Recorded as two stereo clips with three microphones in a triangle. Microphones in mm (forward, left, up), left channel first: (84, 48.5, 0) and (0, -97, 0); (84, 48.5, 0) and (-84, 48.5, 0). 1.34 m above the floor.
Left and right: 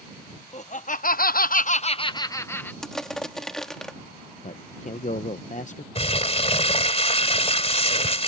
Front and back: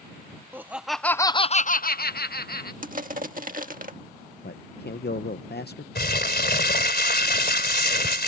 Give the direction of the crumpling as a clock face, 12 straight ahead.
12 o'clock.